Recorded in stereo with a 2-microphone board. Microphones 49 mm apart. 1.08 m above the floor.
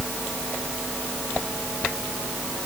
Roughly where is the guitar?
No guitar in this recording.